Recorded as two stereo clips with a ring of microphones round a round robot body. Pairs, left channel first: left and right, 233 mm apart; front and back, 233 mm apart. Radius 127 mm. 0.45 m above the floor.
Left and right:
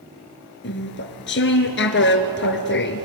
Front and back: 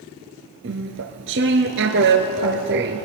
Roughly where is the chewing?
Behind left.